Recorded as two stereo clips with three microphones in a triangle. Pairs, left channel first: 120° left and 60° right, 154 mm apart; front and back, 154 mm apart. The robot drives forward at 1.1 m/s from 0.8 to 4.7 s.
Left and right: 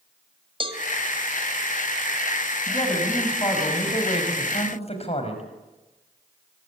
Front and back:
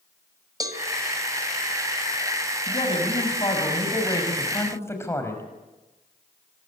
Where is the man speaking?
55° left, 6 m; by 5.4 s 75° left, 5 m.